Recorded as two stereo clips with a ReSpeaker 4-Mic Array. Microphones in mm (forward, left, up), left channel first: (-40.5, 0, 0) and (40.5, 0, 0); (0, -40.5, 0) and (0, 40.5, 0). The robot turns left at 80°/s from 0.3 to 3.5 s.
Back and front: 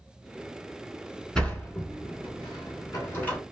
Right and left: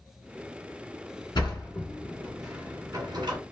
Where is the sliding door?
100° right, 1.6 m; by 3.4 s 100° left, 1.6 m.